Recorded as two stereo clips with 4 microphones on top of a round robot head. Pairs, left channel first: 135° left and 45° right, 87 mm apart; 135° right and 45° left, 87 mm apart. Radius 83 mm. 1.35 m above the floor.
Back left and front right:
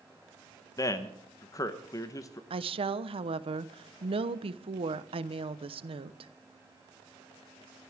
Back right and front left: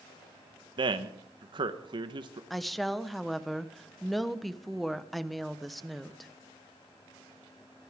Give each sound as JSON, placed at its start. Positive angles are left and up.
{"t": 0.8, "sound": "a man speaking", "azimuth_deg": 80, "distance_m": 1.2}
{"t": 2.5, "sound": "a woman speaking", "azimuth_deg": -45, "distance_m": 1.1}